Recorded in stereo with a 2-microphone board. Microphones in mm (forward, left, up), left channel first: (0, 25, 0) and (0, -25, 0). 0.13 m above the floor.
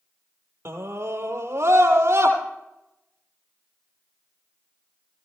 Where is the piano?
I don't hear a piano.